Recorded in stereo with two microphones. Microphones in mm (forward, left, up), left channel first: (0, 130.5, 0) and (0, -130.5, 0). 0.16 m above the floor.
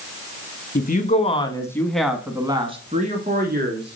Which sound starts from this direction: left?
A woman speaking, at 0.8 s.